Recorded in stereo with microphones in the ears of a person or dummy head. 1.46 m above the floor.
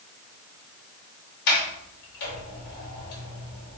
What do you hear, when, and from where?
1.5 s a sliding door: 55° left (ahead or behind), 3 m